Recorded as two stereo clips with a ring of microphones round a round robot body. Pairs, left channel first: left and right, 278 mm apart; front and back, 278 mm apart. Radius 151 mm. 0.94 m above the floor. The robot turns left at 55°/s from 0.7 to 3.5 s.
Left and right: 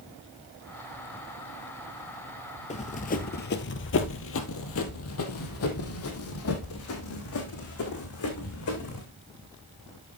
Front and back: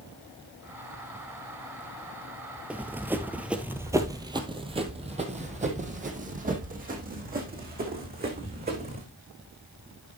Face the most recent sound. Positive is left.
turn(degrees=125)